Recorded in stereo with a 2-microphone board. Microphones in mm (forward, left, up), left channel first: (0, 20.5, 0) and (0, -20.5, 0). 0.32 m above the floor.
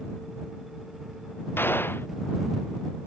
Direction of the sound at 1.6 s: 70° left (ahead or behind).